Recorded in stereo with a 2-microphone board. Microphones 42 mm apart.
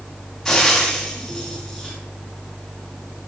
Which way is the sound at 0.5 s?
5° left (ahead or behind).